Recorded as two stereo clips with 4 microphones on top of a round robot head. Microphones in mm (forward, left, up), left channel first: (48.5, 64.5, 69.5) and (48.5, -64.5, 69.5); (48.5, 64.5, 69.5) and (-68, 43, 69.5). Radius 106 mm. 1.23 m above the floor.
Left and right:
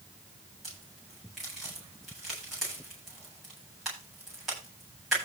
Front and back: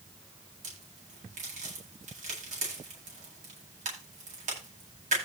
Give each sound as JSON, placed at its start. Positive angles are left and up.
{"t": 0.6, "sound": "a crack", "azimuth_deg": 180, "distance_m": 9.0}